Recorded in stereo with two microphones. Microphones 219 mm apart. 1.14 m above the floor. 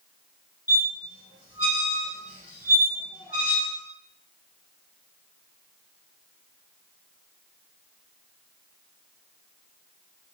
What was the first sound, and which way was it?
A squeak, 5° right (ahead or behind).